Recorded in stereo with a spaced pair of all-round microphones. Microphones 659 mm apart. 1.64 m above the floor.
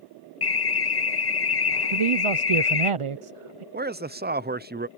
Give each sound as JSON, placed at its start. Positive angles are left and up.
{"t": 0.4, "sound": "an alarm", "side_deg": 40}
{"t": 1.9, "sound": "a man speaking", "side_deg": -55}
{"t": 3.7, "sound": "a man speaking", "side_deg": -15}